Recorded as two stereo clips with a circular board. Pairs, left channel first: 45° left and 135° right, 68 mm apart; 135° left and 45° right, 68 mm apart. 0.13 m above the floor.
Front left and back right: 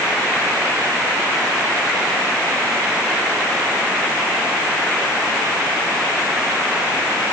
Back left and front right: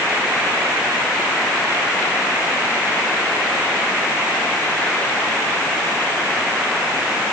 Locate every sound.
Only background noise.